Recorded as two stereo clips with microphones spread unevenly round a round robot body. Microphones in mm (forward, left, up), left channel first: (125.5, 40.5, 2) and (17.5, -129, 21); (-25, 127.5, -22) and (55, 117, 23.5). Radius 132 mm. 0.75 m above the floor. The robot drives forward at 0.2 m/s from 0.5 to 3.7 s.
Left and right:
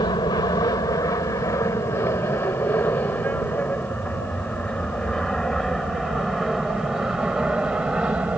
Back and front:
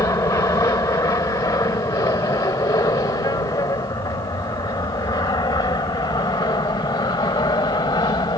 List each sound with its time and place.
0.0 s an aircraft: 130° left; by 8.4 s 150° left